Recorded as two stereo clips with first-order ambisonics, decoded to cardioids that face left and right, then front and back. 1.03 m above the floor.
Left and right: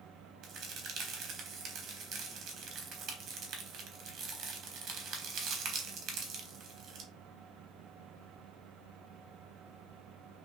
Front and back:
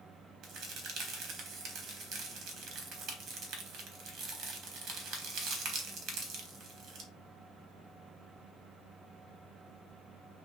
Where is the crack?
135° right, 1.0 m.